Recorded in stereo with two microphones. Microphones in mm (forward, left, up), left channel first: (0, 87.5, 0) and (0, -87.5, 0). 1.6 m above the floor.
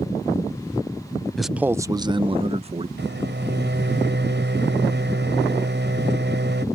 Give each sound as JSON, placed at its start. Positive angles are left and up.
{"t": 1.4, "sound": "a man speaking", "side_deg": 0}
{"t": 3.0, "sound": "a microwave", "side_deg": -85}